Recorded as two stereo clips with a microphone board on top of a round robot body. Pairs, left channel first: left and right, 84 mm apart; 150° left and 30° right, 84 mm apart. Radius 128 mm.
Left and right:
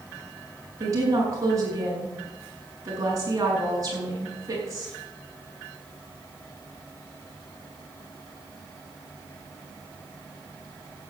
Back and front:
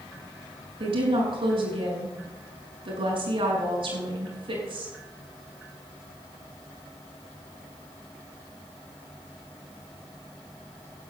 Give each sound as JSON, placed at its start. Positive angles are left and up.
{"t": 0.8, "sound": "a woman speaking", "azimuth_deg": -40, "distance_m": 6.5}